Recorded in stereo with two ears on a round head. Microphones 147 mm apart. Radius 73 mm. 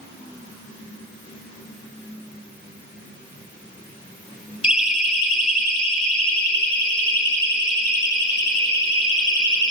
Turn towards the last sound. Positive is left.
turn(degrees=30)  # may be behind; listen again after turning